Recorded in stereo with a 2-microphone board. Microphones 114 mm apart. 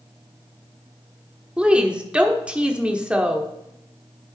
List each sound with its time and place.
1.6 s a woman speaking: 10° right (ahead or behind), 0.8 m